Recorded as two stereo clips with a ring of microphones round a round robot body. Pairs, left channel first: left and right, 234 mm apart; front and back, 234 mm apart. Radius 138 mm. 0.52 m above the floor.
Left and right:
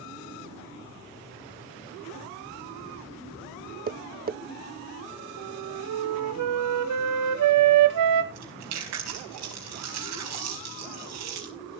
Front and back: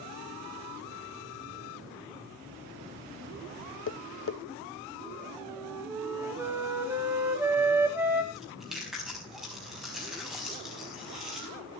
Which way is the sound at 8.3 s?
90° right.